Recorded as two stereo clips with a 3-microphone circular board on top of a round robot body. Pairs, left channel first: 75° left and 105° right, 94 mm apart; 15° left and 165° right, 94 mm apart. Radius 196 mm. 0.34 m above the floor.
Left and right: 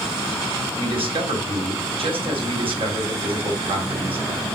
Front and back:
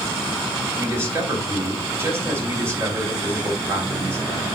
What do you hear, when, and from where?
0.8 s a man speaking: 100° right, 3.5 m